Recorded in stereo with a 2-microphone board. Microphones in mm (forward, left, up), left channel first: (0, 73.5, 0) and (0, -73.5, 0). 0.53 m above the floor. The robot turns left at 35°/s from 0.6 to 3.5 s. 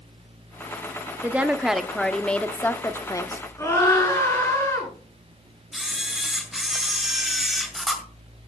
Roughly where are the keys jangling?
I don't hear keys jangling.